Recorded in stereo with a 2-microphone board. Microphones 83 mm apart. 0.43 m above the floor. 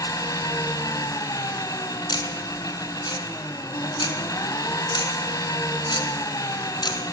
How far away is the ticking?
About 2.5 m.